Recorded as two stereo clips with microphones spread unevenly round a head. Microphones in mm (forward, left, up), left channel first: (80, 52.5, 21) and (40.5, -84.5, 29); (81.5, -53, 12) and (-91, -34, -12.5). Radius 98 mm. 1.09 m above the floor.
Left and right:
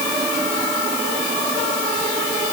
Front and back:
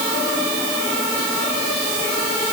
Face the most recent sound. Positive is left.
No sound to turn to.